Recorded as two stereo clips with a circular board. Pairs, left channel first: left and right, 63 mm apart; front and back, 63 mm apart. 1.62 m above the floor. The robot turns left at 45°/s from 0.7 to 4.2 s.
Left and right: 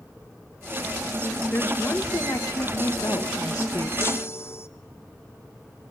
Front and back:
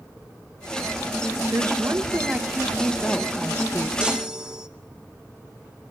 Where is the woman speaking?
150° left, 1.6 m; by 3.9 s 40° left, 1.6 m.